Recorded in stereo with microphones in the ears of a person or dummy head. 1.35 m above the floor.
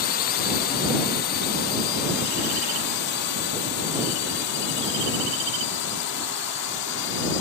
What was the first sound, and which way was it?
A drone, 40° left (ahead or behind).